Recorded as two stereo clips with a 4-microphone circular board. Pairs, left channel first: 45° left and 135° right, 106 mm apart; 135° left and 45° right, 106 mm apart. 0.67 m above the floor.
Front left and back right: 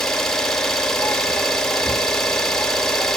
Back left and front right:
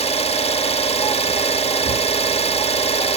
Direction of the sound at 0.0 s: 130° left.